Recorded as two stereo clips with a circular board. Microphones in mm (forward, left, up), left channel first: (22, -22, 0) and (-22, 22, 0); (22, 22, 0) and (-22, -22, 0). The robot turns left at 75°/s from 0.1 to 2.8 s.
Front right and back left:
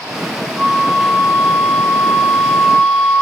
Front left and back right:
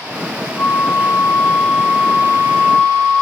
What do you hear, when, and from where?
0.6 s a flute: 60° left, 0.6 m; by 3.2 s 110° right, 0.6 m